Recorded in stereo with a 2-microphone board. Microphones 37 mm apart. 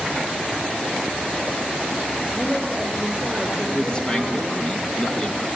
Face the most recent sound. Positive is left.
turn(degrees=25)  # may be behind; listen again after turning